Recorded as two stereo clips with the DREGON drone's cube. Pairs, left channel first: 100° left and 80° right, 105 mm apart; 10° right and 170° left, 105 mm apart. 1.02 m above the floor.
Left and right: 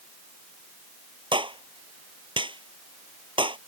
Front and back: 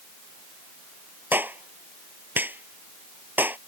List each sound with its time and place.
1.3 s a clap: 120° right